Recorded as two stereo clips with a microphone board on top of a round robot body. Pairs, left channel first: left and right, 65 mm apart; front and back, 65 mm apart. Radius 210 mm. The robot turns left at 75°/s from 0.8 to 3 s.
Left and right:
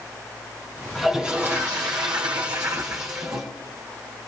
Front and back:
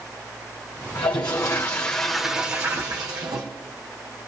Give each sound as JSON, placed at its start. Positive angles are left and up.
{"t": 0.9, "sound": "a toilet flushing", "azimuth_deg": 0, "distance_m": 1.1}